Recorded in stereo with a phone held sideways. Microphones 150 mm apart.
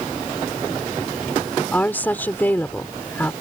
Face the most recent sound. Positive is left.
turn(degrees=15)  # may be behind; listen again after turning